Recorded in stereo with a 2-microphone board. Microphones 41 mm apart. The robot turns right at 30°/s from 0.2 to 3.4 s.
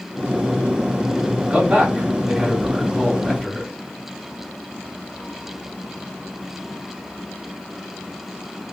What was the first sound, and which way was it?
A man speaking, 45° right.